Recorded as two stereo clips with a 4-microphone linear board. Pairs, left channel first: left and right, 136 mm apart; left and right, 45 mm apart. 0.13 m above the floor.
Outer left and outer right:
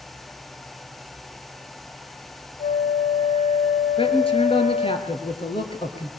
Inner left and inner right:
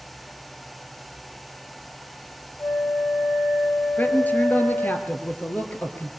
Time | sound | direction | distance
2.6 | a flute | 60° left (ahead or behind) | 1.9 m
4.0 | a man speaking | 40° left (ahead or behind) | 2.5 m